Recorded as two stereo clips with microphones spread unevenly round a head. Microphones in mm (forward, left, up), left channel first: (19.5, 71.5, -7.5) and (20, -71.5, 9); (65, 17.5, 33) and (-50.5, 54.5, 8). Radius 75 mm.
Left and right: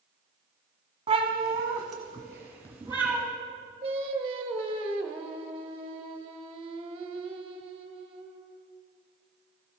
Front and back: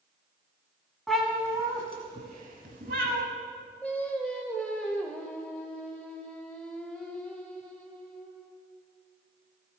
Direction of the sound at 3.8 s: 85° right.